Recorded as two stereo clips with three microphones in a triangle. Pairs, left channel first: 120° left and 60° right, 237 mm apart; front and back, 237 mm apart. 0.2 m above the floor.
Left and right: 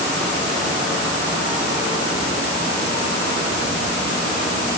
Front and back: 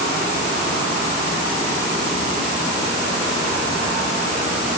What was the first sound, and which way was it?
Only background noise.